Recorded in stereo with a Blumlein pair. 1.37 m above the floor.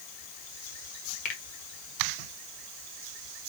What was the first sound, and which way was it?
A finger snap, 40° left.